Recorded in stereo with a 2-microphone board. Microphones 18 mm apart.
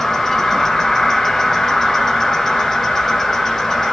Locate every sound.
0.0 s an insect: 25° left (ahead or behind), 1.0 m